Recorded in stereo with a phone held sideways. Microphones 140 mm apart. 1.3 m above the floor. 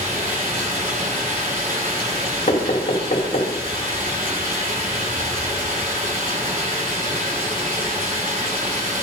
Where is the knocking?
50° left (ahead or behind), 3 m.